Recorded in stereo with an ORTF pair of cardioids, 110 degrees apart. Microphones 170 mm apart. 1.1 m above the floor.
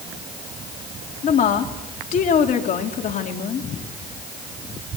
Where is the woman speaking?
50° left, 3 m.